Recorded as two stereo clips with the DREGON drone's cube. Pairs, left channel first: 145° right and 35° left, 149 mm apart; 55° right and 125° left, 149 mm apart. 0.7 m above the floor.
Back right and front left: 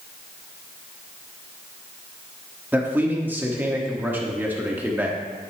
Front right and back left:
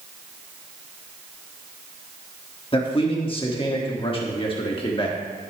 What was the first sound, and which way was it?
A man speaking, 35° right.